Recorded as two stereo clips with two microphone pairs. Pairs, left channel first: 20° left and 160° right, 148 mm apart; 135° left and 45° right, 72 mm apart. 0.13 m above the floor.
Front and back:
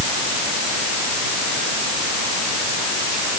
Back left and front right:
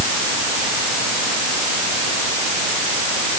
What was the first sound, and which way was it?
Only background noise.